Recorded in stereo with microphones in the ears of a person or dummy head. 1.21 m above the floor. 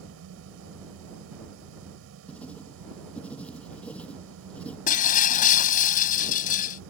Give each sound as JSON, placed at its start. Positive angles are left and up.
{"t": 0.0, "sound": "a fan", "side_deg": -75}
{"t": 2.3, "sound": "writing", "side_deg": 10}
{"t": 4.9, "sound": "breaking glass", "side_deg": 45}